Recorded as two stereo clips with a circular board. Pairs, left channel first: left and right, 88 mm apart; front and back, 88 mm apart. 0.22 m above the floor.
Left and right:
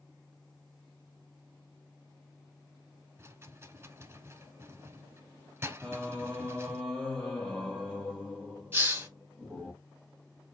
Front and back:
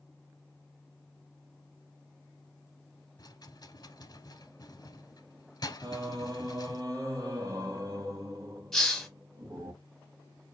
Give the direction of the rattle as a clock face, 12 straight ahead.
1 o'clock.